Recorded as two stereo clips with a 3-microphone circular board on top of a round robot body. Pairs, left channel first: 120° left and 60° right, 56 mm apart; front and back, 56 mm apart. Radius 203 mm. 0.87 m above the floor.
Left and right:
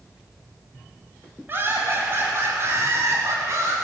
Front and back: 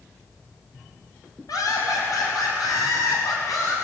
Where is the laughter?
5° right, 6.5 m; by 3.8 s 20° right, 7.5 m.